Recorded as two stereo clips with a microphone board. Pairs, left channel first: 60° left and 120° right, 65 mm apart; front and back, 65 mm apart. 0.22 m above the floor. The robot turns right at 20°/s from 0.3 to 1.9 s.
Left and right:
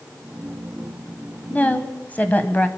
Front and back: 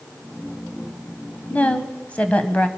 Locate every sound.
1.5 s a woman speaking: 30° left, 1.0 m; by 2.7 s 40° left, 1.0 m